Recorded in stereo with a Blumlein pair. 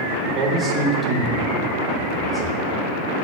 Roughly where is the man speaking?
Ahead right.